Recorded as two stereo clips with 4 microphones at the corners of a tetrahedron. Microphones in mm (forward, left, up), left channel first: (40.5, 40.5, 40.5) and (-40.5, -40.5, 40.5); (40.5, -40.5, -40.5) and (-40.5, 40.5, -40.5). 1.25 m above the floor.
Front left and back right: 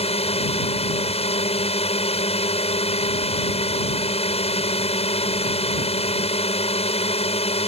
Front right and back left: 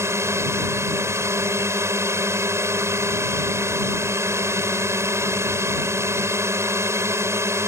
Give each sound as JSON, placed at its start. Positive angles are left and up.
{"t": 0.0, "sound": "a drone", "azimuth_deg": 70}